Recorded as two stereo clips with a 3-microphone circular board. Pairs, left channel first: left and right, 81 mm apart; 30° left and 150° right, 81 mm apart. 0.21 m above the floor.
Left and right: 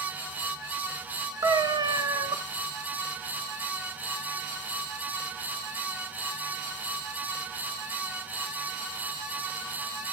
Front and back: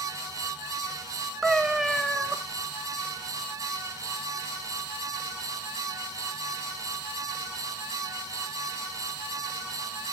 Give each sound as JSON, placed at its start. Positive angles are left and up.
{"t": 1.4, "sound": "a cat meowing", "azimuth_deg": -65, "distance_m": 1.2}